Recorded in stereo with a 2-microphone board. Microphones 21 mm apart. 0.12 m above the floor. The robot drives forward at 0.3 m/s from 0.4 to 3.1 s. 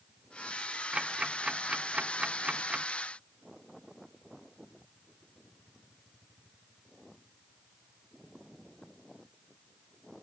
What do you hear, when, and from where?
0.9 s ticking: 40° right (ahead or behind); by 2.9 s 35° right (ahead or behind)